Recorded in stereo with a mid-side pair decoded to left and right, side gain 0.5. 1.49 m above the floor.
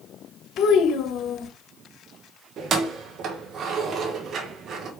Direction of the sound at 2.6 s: 60° right.